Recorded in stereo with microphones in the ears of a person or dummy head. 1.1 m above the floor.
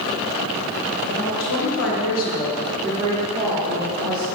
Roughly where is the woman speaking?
Left.